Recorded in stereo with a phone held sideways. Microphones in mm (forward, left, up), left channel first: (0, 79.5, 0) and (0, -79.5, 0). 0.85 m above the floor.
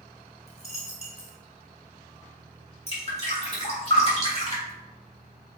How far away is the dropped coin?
About 0.9 m.